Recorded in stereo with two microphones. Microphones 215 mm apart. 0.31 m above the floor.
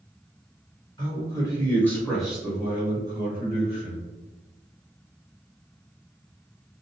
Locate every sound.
1.0 s a man speaking: 20° left (ahead or behind), 1.3 m; by 4.0 s 35° right (ahead or behind), 1.3 m